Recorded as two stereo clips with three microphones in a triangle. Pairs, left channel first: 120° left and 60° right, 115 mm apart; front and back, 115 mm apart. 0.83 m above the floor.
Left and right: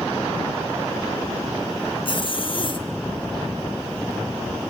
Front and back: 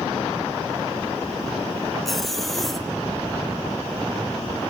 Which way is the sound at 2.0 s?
90° left.